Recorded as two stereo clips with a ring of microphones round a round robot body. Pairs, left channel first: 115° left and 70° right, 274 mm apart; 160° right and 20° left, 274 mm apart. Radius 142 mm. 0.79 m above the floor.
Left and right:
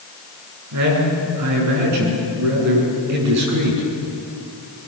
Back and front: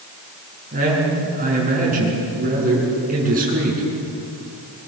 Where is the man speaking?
40° right, 8.5 m.